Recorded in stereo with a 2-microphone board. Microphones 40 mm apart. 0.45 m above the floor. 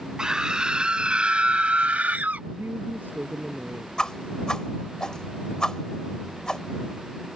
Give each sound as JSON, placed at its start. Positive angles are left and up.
{"t": 0.2, "sound": "a scream", "side_deg": -15}
{"t": 2.5, "sound": "a woman speaking", "side_deg": -50}
{"t": 4.0, "sound": "a whoosh", "side_deg": 15}